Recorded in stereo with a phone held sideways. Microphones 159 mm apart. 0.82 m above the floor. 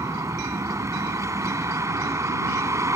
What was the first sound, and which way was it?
A vehicle, 20° right (ahead or behind).